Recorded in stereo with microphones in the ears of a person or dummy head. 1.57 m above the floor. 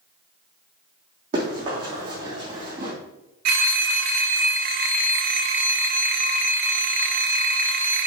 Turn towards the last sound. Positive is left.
turn(degrees=-60)  # may be behind; listen again after turning